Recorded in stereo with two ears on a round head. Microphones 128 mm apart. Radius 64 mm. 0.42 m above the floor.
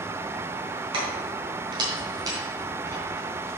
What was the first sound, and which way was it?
Keys jangling, 35° right (ahead or behind).